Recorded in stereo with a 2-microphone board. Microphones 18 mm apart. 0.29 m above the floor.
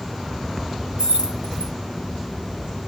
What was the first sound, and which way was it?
Keys jangling, 55° right (ahead or behind).